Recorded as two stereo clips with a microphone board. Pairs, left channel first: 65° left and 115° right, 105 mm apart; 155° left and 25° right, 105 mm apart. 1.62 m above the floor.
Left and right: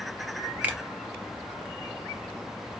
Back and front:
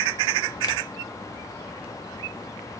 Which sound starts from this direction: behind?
A finger snap, at 0.6 s.